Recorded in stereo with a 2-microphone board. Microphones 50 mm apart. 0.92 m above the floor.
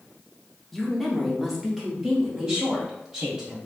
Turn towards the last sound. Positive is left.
turn(degrees=-15)  # may be behind; listen again after turning